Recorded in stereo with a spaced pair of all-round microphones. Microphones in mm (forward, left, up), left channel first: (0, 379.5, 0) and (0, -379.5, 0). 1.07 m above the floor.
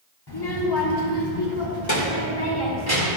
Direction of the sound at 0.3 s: 30° left (ahead or behind).